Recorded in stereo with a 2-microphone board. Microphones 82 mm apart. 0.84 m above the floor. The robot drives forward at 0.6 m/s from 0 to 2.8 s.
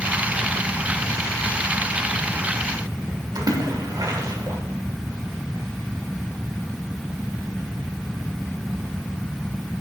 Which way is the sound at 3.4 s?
50° right (ahead or behind).